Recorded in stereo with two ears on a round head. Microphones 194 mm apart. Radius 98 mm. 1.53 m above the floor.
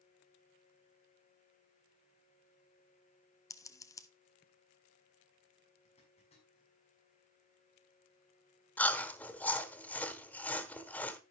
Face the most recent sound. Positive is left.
turn(degrees=10)  # may be behind; listen again after turning